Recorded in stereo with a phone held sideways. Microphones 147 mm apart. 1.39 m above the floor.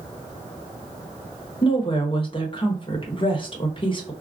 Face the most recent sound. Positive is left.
turn(degrees=35)  # may be behind; listen again after turning